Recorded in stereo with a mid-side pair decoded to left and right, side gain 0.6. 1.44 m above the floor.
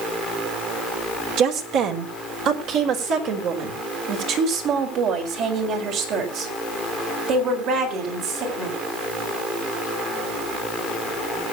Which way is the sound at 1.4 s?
70° right.